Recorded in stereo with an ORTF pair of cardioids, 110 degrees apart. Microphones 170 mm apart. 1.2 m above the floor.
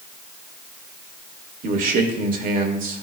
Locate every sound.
1.6 s a man speaking: 55° right, 1.7 m